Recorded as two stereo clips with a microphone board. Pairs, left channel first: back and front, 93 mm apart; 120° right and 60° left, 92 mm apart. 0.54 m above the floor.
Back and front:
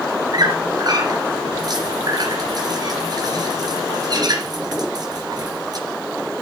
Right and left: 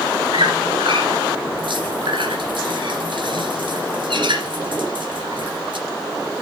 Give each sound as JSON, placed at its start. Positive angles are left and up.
{"t": 0.3, "sound": "a squeak", "azimuth_deg": 40, "distance_m": 2.5}